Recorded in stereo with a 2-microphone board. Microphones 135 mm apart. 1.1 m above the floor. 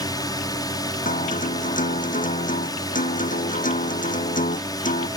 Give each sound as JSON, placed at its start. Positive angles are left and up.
{"t": 0.0, "sound": "a drone", "side_deg": 30}
{"t": 1.1, "sound": "a guitar", "side_deg": 75}